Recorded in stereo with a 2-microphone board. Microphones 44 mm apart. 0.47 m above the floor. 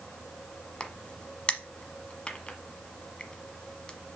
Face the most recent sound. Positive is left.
turn(degrees=20)  # may be behind; listen again after turning